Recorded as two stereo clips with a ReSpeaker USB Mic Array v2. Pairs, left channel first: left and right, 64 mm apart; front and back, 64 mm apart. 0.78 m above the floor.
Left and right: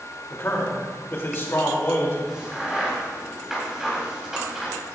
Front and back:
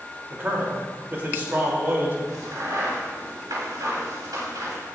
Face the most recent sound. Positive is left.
turn(degrees=-170)